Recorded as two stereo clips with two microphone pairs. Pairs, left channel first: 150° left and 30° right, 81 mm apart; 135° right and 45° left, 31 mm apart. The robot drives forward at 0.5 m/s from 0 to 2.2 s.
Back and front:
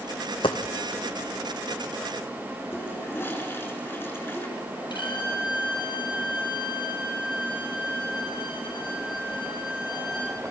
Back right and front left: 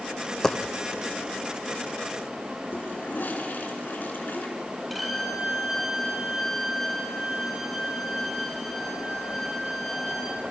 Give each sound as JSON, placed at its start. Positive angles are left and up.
{"t": 0.4, "sound": "a dropped coin", "azimuth_deg": 145, "distance_m": 1.7}
{"t": 2.7, "sound": "a toilet flushing", "azimuth_deg": -145, "distance_m": 3.5}
{"t": 4.9, "sound": "a violin", "azimuth_deg": 130, "distance_m": 4.5}